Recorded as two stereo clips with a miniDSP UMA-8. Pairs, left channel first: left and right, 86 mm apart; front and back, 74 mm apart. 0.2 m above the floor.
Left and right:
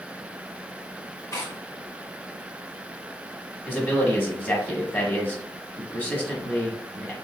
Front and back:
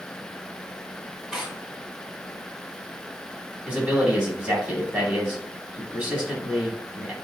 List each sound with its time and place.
1.3 s tearing paper: 105° left, 1.0 m
3.7 s a man speaking: 135° left, 1.1 m